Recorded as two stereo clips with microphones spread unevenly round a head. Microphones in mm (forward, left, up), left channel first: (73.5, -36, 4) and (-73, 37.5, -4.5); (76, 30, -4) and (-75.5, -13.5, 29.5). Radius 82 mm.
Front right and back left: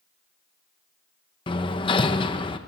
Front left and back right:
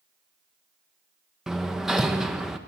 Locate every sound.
1.5 s hammering: 85° right, 1.1 m